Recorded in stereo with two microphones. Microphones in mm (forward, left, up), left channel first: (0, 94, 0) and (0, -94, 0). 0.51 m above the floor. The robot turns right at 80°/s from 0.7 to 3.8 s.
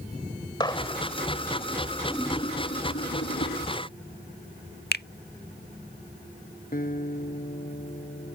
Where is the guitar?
50° left (ahead or behind).